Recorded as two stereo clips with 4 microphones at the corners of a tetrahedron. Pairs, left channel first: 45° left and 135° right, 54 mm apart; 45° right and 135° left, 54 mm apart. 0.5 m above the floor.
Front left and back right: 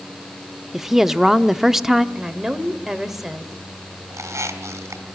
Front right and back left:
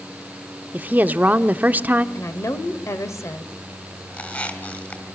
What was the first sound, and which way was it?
A woman speaking, 145° left.